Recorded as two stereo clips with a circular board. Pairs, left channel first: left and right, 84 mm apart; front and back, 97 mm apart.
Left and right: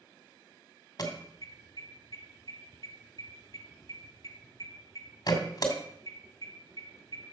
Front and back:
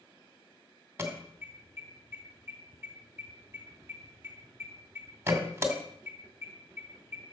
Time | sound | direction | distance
1.0 | an alarm | 120° left | 2 m